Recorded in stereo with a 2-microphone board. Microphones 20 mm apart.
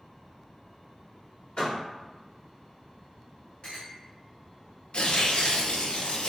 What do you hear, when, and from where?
1.6 s a door slam: 45° left (ahead or behind), 1.7 m
3.6 s a clink: 40° left (ahead or behind), 1.4 m
4.9 s tearing paper: 60° left (ahead or behind), 0.6 m